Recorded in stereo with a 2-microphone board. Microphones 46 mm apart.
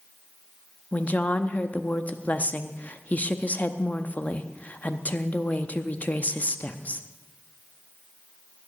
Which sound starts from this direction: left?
A woman speaking, at 0.9 s.